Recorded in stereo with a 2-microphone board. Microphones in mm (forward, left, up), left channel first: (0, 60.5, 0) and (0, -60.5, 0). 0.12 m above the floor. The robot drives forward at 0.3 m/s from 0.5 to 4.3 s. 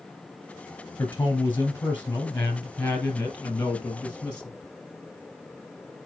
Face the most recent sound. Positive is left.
turn(degrees=10)  # may be behind; listen again after turning